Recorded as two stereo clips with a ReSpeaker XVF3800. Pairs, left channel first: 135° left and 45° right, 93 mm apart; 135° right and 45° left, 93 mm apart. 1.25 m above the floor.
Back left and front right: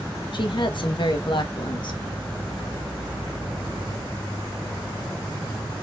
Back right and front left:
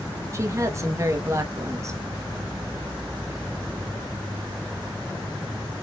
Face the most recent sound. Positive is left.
turn(degrees=105)